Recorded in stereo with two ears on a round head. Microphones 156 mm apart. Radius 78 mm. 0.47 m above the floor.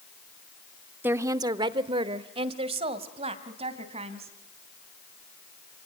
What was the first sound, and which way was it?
A woman speaking, 10° right (ahead or behind).